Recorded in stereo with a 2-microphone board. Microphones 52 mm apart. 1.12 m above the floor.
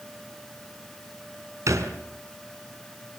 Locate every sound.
1.7 s a thud: 80° right, 4.5 m